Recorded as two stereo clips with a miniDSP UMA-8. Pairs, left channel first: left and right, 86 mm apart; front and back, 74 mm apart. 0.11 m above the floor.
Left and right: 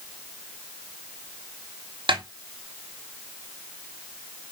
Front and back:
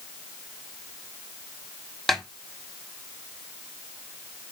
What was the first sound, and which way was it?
A snare drum, 90° right.